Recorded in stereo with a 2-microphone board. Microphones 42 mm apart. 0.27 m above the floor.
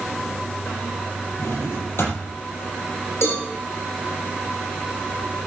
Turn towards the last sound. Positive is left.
turn(degrees=80)